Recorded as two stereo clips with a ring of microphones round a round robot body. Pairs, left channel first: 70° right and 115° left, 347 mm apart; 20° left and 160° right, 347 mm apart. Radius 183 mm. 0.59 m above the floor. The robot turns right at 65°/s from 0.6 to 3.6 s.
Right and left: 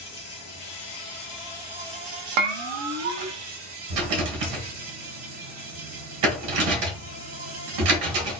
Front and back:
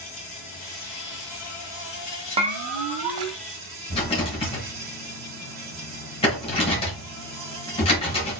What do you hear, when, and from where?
0.0 s an insect: 45° right, 3 m; by 8.4 s 150° left, 3 m
2.4 s a bell: 125° left, 0.5 m; by 3.4 s 170° right, 0.5 m
3.9 s a rattle: 95° left, 1.3 m